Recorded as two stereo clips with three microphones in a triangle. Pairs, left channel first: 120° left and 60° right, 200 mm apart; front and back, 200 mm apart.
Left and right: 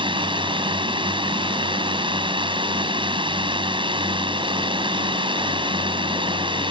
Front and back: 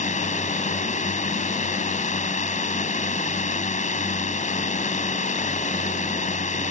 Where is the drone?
10° right.